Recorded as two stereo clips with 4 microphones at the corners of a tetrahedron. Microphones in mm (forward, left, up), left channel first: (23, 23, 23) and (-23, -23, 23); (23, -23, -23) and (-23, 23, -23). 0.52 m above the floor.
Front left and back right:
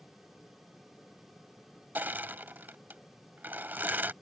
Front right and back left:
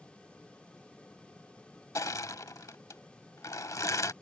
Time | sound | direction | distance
1.9 | crushing | 75° right | ?